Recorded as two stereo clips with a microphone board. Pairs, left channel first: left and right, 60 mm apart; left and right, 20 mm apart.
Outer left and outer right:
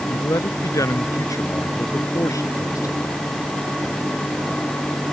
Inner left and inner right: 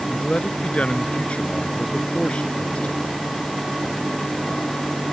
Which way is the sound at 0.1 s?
70° left (ahead or behind).